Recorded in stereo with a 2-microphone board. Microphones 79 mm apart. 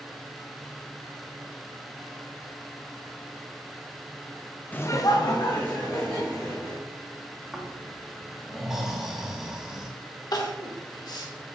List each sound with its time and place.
4.7 s laughter: 20° left (ahead or behind), 0.6 m; by 6.8 s 55° left (ahead or behind), 2.5 m
7.5 s snoring: 5° right (ahead or behind), 1.4 m
10.3 s crying: 55° left (ahead or behind), 1.1 m